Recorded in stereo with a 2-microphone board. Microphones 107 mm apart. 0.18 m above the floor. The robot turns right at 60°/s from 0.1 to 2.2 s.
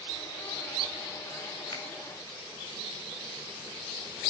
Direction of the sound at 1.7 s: 45° left (ahead or behind).